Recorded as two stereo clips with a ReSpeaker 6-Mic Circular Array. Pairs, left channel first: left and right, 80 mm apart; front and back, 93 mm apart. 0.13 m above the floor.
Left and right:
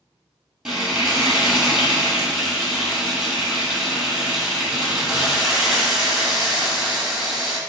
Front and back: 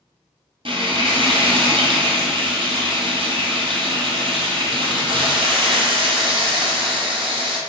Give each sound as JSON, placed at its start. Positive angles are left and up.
{"t": 0.7, "sound": "frying", "azimuth_deg": -170, "distance_m": 1.1}